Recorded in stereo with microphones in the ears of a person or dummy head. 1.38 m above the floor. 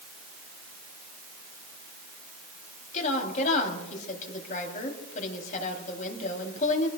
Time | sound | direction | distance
2.9 | a woman speaking | 45° left (ahead or behind) | 3.5 m